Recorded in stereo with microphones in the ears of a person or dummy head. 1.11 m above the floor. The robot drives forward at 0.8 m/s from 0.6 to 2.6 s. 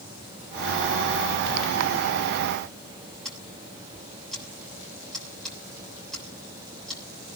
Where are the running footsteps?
I don't hear running footsteps.